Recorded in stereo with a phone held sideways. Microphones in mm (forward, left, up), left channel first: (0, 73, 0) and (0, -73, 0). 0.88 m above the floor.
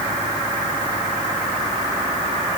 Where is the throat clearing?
I don't hear throat clearing.